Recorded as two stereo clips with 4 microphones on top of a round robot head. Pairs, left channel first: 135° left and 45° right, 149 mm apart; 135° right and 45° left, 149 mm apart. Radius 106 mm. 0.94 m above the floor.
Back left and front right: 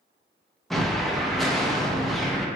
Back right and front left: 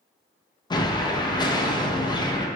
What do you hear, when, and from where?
0.7 s an explosion: 140° right, 0.5 m